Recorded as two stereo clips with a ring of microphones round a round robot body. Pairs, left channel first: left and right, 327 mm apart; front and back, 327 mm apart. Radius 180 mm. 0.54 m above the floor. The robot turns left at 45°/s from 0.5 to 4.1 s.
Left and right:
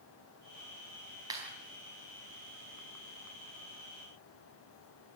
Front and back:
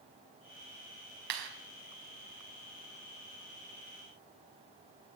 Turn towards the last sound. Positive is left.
turn(degrees=65)